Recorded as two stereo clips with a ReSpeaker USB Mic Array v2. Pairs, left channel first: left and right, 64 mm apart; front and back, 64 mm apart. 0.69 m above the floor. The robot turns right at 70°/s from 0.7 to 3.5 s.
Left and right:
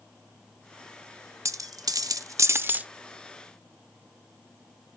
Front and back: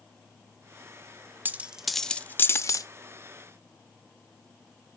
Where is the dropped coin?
120° right, 0.5 m; by 2.9 s 20° right, 0.5 m.